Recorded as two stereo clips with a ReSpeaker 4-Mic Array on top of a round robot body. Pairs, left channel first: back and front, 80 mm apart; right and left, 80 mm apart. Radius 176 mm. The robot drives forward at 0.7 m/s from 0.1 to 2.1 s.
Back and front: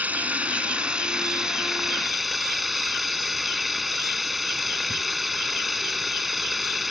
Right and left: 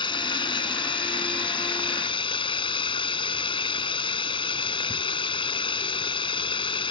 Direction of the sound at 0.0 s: 70° right.